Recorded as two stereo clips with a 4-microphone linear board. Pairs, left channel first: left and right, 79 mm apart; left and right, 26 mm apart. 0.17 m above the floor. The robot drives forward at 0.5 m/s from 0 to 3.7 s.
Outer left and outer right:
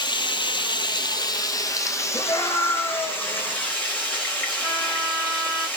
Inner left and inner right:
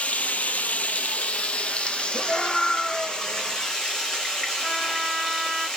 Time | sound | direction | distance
0.0 | running water | 70° left (ahead or behind) | 0.7 m
2.1 | a scream | 55° left (ahead or behind) | 2.5 m
4.6 | a trumpet | 5° left (ahead or behind) | 2.5 m